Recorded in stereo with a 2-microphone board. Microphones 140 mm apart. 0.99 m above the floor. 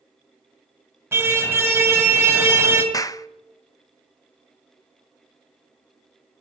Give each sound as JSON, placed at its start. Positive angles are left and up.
{"t": 1.1, "sound": "a car horn", "side_deg": -15, "distance_m": 2.5}
{"t": 2.9, "sound": "a clap", "side_deg": 25, "distance_m": 0.5}